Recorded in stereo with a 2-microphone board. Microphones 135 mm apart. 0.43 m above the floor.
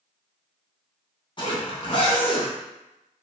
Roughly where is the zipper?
Left.